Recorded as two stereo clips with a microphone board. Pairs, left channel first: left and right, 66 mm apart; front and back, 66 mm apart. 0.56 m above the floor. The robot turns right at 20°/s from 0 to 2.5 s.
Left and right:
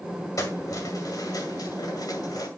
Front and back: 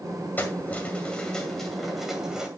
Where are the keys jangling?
60° left, 2 m; by 2.5 s 100° left, 2 m.